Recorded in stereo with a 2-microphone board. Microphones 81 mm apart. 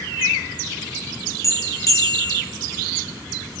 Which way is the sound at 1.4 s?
40° left (ahead or behind).